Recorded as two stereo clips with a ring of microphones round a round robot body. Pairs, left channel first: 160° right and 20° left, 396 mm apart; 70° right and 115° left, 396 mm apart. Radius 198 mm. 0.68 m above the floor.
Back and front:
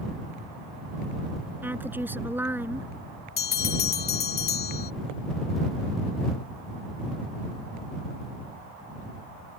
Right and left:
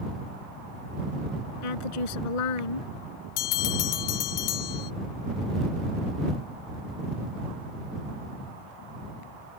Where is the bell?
90° right.